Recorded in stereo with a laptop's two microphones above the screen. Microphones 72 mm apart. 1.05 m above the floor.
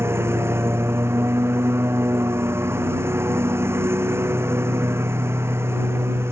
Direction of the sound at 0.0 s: 35° right (ahead or behind).